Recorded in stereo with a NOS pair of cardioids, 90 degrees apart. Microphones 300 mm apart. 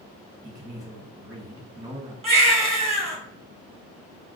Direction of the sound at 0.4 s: 10° right.